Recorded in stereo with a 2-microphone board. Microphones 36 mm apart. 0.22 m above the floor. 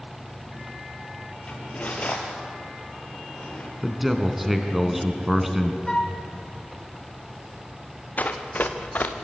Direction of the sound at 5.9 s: 20° left (ahead or behind).